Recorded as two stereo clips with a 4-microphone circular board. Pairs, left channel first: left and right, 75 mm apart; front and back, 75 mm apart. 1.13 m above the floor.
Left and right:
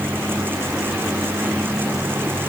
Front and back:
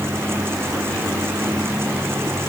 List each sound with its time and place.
Only background noise.